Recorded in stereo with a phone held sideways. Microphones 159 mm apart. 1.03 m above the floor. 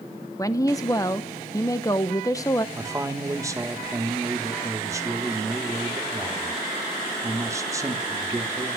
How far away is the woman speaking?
About 0.7 m.